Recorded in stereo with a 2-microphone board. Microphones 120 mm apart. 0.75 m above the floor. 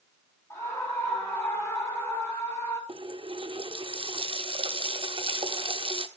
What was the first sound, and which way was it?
A scream, 25° left (ahead or behind).